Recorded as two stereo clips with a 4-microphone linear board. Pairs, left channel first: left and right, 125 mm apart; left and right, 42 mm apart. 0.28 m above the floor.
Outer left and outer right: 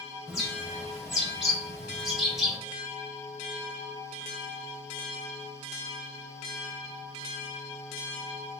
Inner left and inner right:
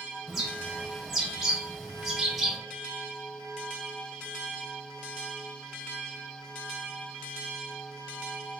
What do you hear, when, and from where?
0.3 s a bird: 5° right (ahead or behind), 1.0 m